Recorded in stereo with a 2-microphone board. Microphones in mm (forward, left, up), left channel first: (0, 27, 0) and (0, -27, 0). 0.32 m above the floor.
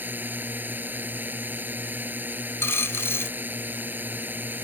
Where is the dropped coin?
50° left (ahead or behind).